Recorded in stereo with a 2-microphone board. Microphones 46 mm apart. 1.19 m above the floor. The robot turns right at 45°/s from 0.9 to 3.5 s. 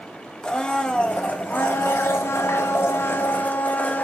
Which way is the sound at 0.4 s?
20° left.